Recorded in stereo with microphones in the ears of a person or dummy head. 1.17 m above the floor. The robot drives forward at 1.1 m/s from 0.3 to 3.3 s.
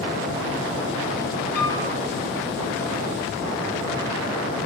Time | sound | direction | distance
1.6 | a piano | 55° left (ahead or behind) | 3.5 m